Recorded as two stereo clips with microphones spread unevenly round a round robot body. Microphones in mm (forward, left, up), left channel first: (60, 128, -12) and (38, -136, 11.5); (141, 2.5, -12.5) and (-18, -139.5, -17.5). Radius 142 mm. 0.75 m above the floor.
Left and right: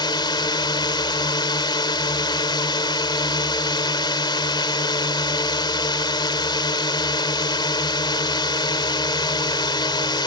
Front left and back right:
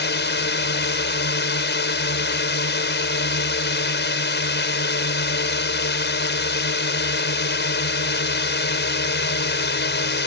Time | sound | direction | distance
0.0 | a drone | 10° left | ?